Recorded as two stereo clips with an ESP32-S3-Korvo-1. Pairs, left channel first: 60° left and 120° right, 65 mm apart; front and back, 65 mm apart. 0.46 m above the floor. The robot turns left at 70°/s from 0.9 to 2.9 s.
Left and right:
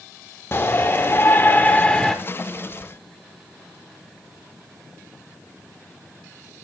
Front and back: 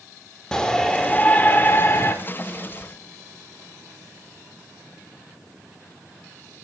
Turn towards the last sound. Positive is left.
turn(degrees=-70)